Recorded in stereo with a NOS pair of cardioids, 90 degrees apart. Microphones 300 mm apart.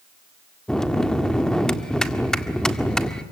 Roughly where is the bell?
Ahead.